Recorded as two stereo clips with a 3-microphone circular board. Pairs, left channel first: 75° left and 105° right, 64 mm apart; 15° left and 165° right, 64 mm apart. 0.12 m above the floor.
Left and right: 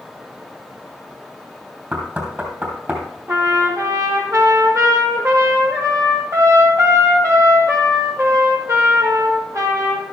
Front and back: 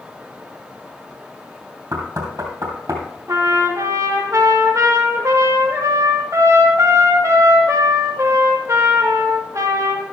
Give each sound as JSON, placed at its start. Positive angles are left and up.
{"t": 1.9, "sound": "knocking", "azimuth_deg": -160, "distance_m": 3.0}
{"t": 3.3, "sound": "a trumpet", "azimuth_deg": -135, "distance_m": 2.5}